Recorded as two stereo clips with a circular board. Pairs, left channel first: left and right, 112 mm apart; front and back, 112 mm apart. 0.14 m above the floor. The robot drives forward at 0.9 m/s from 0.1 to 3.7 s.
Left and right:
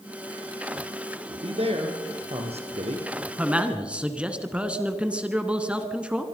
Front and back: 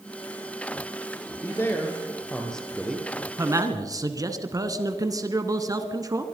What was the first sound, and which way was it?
A man speaking, 65° right.